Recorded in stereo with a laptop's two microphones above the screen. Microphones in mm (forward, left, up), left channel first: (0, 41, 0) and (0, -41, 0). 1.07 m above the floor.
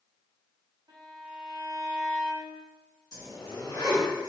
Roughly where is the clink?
I don't hear a clink.